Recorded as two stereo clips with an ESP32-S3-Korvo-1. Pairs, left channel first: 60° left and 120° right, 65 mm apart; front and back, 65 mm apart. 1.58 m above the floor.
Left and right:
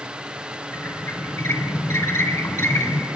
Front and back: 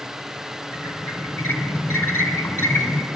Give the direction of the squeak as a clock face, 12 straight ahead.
11 o'clock.